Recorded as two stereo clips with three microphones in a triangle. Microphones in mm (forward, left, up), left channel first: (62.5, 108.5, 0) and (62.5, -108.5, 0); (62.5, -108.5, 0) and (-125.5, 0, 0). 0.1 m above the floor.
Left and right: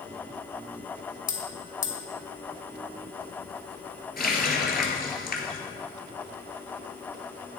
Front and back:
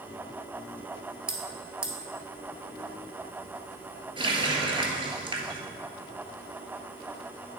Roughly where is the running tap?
Left.